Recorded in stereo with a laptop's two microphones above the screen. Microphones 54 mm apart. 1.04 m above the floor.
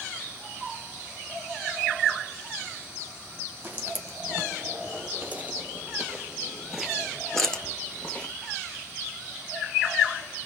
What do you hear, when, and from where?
3.6 s footsteps: 35° right (ahead or behind), 2.5 m; by 8.3 s 25° left (ahead or behind), 1.3 m